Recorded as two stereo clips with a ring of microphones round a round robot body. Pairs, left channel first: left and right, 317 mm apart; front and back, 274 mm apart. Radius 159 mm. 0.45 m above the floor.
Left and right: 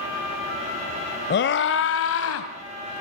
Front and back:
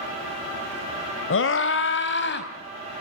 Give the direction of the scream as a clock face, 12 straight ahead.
11 o'clock.